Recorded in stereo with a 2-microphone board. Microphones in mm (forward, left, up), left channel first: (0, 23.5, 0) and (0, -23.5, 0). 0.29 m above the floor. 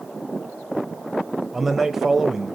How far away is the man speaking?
About 0.9 m.